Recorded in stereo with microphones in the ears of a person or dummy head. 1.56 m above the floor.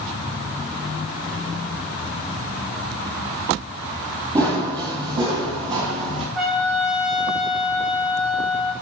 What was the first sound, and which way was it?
Running footsteps, 25° right (ahead or behind).